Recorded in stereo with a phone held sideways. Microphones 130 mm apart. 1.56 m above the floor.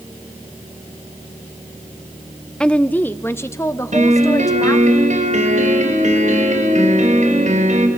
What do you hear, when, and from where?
2.6 s a woman speaking: 5° left (ahead or behind), 0.8 m; by 4.9 s 30° left (ahead or behind), 1.8 m
3.9 s a piano: 70° right (ahead or behind), 4.5 m